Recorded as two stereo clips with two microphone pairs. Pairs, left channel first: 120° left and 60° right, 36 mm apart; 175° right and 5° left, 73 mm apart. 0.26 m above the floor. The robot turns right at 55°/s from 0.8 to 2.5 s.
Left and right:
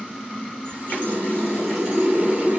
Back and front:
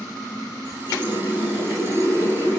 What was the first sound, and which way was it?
A running tap, 165° left.